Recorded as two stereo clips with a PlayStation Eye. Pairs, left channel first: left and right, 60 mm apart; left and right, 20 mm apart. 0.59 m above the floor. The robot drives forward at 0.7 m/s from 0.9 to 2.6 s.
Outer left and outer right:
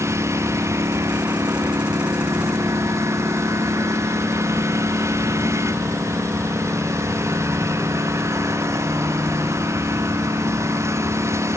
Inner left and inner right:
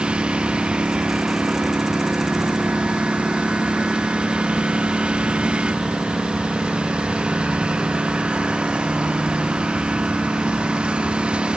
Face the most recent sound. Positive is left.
turn(degrees=-50)  # may be behind; listen again after turning